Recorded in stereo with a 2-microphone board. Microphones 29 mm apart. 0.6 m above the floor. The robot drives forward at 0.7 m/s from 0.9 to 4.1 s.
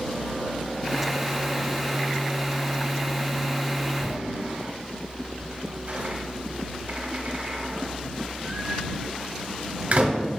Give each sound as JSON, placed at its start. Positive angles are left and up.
{"t": 4.0, "sound": "a door slam", "side_deg": -60, "distance_m": 1.2}